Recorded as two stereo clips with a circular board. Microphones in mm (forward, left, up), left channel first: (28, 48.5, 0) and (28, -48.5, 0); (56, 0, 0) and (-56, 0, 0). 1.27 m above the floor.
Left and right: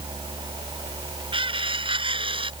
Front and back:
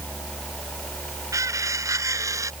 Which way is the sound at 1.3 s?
120° right.